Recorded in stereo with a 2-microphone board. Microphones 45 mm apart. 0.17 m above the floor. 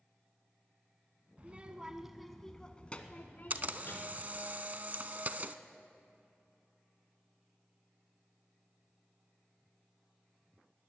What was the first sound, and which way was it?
A child speaking, 30° right (ahead or behind).